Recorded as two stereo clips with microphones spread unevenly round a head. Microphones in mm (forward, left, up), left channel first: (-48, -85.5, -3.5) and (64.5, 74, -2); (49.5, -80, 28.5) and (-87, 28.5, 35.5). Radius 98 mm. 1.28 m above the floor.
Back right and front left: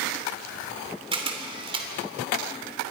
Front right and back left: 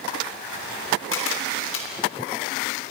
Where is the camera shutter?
10° right, 3 m.